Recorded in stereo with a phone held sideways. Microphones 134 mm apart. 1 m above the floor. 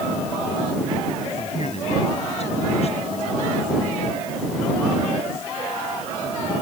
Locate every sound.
1.4 s a man speaking: 55° left (ahead or behind)